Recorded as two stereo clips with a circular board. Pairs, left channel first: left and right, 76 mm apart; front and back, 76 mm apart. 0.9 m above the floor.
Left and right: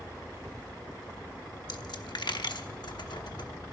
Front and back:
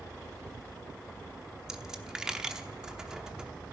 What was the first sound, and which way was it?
A dropped coin, 100° left.